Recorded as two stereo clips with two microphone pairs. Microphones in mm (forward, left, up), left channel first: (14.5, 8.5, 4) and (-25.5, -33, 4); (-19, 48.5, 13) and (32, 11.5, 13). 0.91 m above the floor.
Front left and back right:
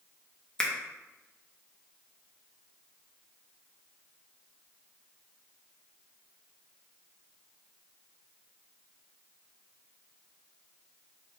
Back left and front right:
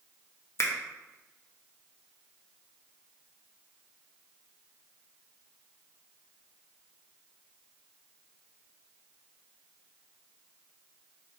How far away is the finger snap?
About 0.6 m.